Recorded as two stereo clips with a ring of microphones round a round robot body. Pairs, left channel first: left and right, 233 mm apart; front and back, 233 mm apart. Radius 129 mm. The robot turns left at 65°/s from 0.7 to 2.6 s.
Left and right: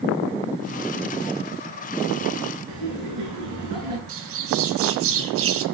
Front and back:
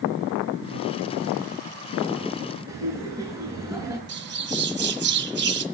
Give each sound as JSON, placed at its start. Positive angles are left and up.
{"t": 2.7, "sound": "laughter", "azimuth_deg": -100, "distance_m": 7.5}
{"t": 4.1, "sound": "a bird", "azimuth_deg": -135, "distance_m": 1.4}